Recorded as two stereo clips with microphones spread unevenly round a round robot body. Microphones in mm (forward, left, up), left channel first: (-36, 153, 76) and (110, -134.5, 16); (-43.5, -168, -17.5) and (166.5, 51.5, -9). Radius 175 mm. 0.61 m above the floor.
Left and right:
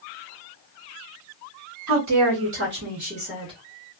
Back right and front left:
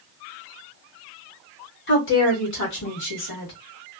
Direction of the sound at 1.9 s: 85° right.